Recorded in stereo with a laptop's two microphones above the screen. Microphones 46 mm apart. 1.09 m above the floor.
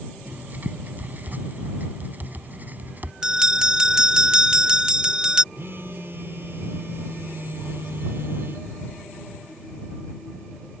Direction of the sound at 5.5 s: 55° right (ahead or behind).